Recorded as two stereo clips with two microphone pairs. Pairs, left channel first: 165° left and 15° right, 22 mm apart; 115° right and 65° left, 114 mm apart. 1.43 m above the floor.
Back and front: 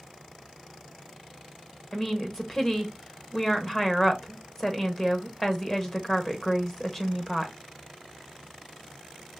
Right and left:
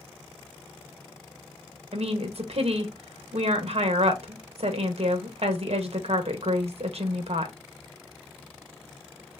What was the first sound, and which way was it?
A woman speaking, 90° left.